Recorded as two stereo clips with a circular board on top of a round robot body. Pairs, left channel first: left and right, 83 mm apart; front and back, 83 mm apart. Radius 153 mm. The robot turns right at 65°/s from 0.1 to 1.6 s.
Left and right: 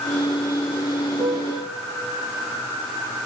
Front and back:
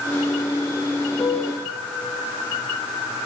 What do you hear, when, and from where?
1.2 s a piano: 65° right, 1.7 m; by 1.7 s 35° right, 1.7 m